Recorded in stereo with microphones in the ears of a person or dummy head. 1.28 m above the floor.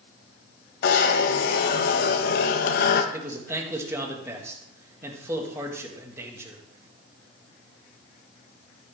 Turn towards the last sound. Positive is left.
turn(degrees=-20)  # may be behind; listen again after turning